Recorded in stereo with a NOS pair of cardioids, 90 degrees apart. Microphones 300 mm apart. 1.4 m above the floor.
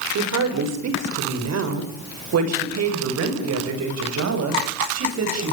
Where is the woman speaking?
60° right, 6.5 m.